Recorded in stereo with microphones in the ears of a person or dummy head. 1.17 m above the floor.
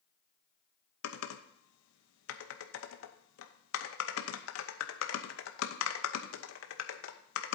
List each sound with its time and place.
1.0 s typing on a keyboard: 75° left (ahead or behind), 0.9 m